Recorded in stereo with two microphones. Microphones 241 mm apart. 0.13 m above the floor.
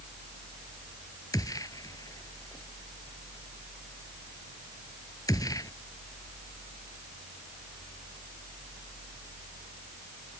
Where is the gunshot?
15° left (ahead or behind).